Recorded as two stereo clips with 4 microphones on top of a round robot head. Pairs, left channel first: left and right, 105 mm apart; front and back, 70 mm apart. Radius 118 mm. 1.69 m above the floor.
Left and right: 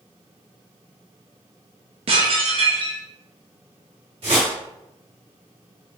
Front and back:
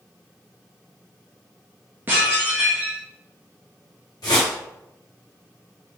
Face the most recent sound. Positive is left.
turn(degrees=-50)